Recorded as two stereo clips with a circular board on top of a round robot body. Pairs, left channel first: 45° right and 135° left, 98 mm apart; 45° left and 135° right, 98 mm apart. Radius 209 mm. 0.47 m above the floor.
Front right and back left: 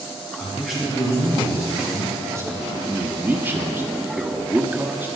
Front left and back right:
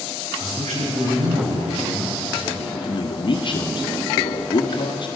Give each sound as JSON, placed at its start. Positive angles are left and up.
{"t": 0.4, "sound": "a man speaking", "azimuth_deg": -135, "distance_m": 5.5}
{"t": 2.8, "sound": "a man speaking", "azimuth_deg": 70, "distance_m": 1.5}